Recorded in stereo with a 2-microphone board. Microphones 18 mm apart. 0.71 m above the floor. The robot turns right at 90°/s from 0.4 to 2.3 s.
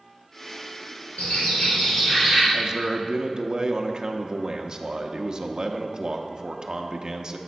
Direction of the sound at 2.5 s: 35° right (ahead or behind).